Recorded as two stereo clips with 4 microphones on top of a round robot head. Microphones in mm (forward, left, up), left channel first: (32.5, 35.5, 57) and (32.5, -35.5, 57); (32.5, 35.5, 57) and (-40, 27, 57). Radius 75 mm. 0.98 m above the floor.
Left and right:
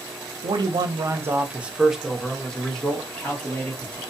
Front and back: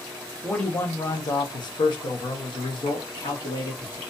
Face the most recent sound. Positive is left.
turn(degrees=20)